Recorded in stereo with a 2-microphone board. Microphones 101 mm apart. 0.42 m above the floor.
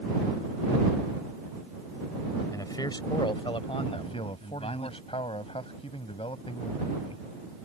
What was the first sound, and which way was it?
A man speaking, 35° left (ahead or behind).